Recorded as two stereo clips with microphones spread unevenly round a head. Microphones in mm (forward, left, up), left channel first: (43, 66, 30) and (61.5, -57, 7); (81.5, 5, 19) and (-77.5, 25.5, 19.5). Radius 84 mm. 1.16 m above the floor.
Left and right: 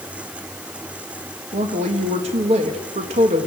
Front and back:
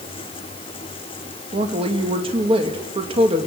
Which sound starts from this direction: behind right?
A woman speaking, at 1.5 s.